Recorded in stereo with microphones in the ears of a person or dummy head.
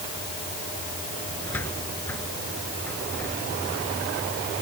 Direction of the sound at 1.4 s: 20° left (ahead or behind).